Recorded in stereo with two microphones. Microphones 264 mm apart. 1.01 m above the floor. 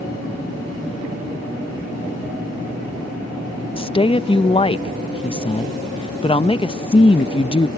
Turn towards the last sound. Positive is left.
turn(degrees=20)  # may be behind; listen again after turning